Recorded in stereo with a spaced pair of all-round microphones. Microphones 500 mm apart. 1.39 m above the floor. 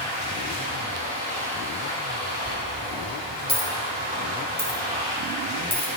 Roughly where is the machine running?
Right.